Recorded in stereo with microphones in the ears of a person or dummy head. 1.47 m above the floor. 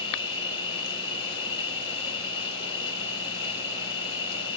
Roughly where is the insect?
Left.